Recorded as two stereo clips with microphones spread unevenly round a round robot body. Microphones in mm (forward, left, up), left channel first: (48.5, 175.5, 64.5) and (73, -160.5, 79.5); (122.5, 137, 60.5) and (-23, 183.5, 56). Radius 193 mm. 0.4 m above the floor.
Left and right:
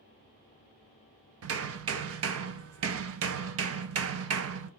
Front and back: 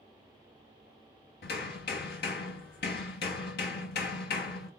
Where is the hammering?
35° right, 0.5 m.